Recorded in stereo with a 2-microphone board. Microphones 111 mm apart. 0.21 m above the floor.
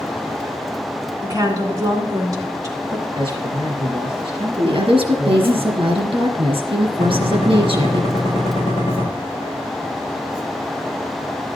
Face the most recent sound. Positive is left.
turn(degrees=50)  # may be behind; listen again after turning